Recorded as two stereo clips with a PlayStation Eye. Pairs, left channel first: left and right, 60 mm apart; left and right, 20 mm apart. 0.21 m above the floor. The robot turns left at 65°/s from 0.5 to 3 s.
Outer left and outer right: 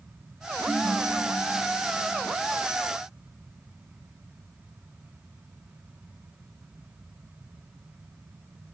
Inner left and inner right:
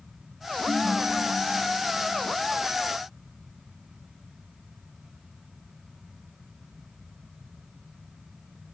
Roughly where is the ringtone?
Ahead.